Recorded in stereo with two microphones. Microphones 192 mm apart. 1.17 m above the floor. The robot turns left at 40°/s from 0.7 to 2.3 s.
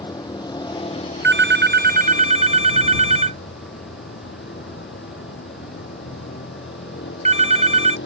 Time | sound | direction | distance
0.0 | a vehicle | 155° left | ?
1.2 | a phone ringing | 75° right (ahead or behind) | ?